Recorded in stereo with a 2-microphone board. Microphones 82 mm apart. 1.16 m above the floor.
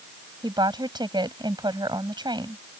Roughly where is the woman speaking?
Right.